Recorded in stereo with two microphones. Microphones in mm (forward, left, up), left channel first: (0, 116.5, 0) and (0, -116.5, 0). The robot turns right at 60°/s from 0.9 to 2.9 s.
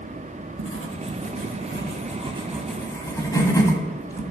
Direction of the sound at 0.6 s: 75° right (ahead or behind).